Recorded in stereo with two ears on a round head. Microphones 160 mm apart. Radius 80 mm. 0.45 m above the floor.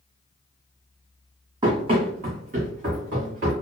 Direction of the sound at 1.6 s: 25° right (ahead or behind).